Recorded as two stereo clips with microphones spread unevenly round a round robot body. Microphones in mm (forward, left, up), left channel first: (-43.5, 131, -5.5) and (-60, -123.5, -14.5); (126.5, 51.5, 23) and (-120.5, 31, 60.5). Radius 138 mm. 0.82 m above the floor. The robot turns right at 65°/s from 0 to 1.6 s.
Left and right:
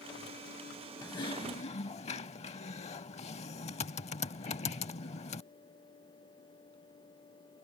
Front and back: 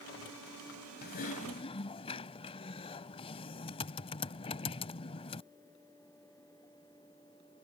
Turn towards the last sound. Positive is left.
turn(degrees=65)